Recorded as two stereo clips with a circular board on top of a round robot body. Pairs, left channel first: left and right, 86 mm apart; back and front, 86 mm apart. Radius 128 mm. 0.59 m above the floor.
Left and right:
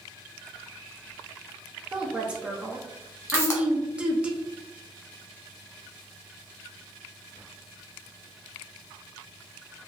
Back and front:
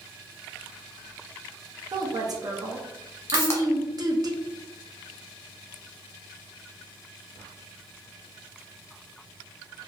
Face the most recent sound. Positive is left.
turn(degrees=135)